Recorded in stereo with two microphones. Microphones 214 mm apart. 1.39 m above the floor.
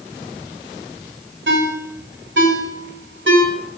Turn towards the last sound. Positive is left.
turn(degrees=-60)  # may be behind; listen again after turning